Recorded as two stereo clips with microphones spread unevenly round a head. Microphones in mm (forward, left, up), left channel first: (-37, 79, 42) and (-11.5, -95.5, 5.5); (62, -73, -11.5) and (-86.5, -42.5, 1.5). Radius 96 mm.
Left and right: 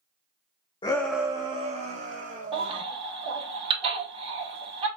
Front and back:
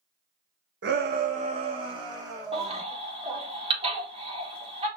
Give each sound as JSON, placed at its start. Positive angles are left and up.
{"t": 0.8, "sound": "a shout", "azimuth_deg": 160, "distance_m": 0.5}
{"t": 2.5, "sound": "a baby crying", "azimuth_deg": -145, "distance_m": 1.9}